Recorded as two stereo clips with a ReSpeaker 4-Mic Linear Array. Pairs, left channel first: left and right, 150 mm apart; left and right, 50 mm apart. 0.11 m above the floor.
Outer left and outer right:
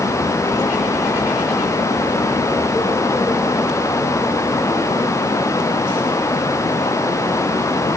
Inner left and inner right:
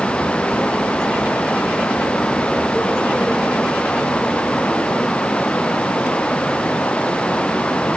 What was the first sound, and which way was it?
Only background noise.